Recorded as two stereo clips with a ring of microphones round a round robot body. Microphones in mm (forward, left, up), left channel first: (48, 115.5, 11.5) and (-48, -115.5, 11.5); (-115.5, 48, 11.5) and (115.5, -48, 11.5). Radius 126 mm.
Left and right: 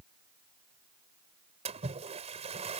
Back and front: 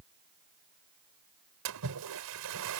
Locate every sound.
1.6 s a splash: 50° right